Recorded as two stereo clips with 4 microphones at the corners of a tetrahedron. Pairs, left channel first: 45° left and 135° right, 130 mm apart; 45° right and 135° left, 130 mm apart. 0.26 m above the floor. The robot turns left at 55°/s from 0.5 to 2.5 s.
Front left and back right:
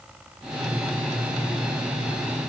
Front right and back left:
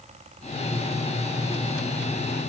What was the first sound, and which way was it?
Only background noise.